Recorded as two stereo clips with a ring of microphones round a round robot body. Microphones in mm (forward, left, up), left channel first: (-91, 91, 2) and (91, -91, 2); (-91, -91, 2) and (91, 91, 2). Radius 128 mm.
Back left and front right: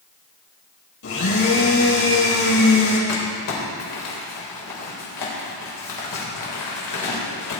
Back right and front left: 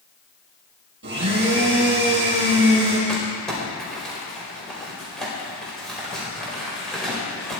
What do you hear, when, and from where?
1.0 s a blender: 95° left, 5.5 m
3.1 s crumpling: 135° left, 4.5 m